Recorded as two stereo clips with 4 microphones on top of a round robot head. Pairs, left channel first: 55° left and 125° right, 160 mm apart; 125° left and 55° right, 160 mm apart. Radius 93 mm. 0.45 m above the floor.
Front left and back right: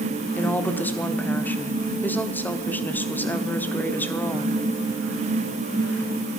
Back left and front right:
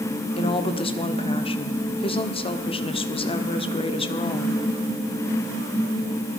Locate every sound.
0.4 s a woman speaking: 125° left, 1.1 m